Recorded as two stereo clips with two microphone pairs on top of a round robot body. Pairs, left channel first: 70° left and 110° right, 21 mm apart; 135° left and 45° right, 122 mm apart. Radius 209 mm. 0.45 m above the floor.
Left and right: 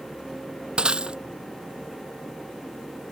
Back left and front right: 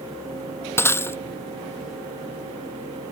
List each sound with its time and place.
0.8 s breaking glass: 155° right